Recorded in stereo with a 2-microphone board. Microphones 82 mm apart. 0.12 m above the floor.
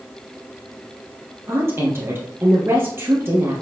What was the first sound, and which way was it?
A woman speaking, 30° right (ahead or behind).